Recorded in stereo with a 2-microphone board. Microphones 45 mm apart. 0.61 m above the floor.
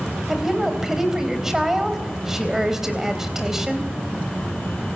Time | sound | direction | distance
0.3 | a woman speaking | 10° right (ahead or behind) | 3.5 m